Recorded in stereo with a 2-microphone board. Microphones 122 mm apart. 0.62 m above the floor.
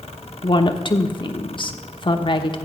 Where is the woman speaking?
45° left (ahead or behind), 1.0 m.